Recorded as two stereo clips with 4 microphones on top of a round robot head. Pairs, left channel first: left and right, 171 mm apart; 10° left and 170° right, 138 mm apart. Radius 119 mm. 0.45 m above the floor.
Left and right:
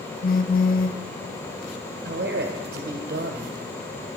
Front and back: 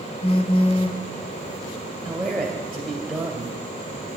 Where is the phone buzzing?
55° left, 0.8 m.